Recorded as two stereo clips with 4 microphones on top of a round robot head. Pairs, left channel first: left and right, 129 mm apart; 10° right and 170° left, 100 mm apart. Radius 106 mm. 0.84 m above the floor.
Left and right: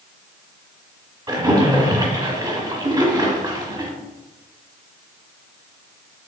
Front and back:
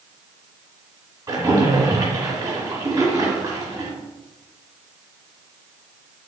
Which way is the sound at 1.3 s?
140° right.